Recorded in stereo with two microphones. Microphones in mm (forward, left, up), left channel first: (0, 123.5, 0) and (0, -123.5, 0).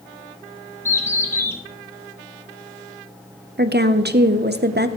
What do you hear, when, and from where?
0.8 s a bird: 10° left (ahead or behind), 1.0 m
3.6 s a woman speaking: 40° right (ahead or behind), 0.6 m